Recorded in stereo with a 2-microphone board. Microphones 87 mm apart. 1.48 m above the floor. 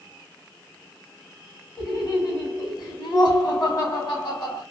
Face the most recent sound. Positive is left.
turn(degrees=55)  # may be behind; listen again after turning